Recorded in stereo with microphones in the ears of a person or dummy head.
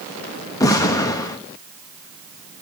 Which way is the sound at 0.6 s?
15° left (ahead or behind).